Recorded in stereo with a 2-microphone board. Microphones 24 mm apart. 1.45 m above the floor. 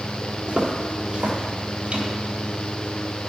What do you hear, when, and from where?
0.5 s footsteps: 40° right (ahead or behind), 2 m; by 2.1 s 50° right (ahead or behind), 2 m